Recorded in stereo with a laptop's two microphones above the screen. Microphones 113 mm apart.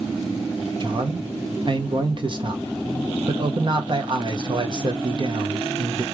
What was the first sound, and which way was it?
A man speaking, 45° right (ahead or behind).